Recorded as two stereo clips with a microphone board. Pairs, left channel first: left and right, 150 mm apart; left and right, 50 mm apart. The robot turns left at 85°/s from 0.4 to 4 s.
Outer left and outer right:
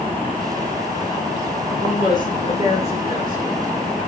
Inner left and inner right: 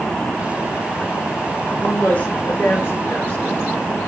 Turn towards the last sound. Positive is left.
turn(degrees=-20)